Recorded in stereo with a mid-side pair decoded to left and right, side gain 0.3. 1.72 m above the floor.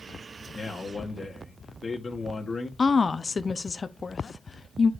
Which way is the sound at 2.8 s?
45° left.